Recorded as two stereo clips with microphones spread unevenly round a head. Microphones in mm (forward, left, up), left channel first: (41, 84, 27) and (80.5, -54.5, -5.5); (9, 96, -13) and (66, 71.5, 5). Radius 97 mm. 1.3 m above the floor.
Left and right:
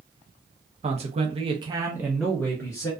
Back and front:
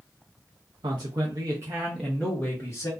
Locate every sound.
0.8 s a man speaking: 55° right, 0.9 m; by 2.9 s straight behind, 0.8 m